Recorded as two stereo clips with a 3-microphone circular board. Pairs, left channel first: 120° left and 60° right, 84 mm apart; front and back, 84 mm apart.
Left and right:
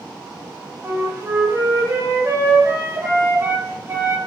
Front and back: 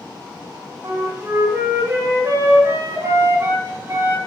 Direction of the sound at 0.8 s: 120° right.